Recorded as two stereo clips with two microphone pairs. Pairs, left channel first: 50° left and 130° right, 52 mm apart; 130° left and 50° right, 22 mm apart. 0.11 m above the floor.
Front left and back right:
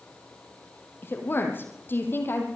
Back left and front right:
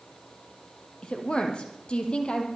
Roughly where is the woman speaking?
Left.